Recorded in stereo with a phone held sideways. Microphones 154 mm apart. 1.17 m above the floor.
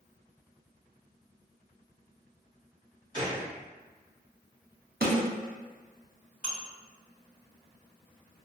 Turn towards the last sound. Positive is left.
turn(degrees=-50)  # may be behind; listen again after turning